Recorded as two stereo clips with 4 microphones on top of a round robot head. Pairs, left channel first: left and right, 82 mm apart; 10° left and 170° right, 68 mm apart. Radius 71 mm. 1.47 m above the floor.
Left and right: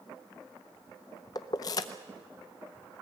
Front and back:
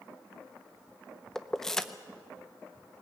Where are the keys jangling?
85° left, 0.6 m.